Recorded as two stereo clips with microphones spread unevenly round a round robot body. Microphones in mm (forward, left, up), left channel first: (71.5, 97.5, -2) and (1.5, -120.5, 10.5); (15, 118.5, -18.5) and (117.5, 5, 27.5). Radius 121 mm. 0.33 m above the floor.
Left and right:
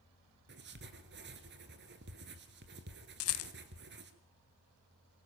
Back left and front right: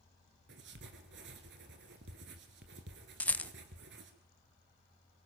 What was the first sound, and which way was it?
Writing, 65° right.